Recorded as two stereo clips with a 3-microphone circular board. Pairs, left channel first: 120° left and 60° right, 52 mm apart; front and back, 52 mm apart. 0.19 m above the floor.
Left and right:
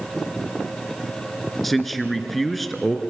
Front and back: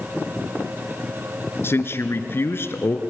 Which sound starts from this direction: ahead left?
A man speaking, at 1.6 s.